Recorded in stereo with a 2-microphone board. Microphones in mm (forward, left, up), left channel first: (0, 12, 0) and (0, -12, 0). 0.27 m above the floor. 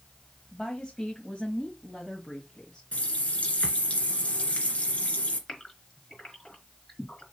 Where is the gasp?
30° left (ahead or behind), 4.5 m.